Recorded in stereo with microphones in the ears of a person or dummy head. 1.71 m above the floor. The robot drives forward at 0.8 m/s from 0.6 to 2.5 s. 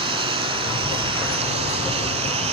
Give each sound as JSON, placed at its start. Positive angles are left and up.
{"t": 0.0, "sound": "a lawn mower", "side_deg": -25}